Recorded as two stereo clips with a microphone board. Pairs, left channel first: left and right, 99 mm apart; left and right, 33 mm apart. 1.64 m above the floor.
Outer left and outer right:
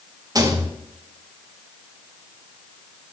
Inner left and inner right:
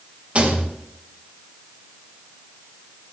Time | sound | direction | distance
0.3 | a rattle | 35° right (ahead or behind) | 1.5 m